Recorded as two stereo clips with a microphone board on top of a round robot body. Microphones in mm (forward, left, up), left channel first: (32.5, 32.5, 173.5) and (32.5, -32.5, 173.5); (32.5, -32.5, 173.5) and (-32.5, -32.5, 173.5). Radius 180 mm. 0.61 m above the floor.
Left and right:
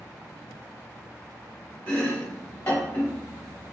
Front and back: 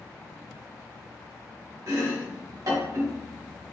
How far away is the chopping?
About 1.3 m.